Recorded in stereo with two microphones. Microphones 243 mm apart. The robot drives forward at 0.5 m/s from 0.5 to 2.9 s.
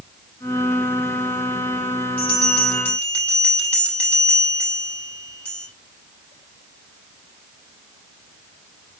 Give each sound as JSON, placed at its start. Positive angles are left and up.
{"t": 2.2, "sound": "a bell", "side_deg": 5, "distance_m": 7.5}